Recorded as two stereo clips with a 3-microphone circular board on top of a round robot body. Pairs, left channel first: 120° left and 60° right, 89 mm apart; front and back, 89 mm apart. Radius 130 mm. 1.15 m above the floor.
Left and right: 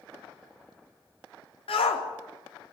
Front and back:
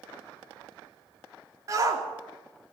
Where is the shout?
125° left, 4 m.